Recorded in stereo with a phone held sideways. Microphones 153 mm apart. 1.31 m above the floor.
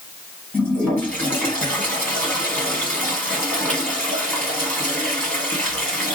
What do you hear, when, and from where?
0.5 s a toilet flushing: 10° left (ahead or behind), 1.9 m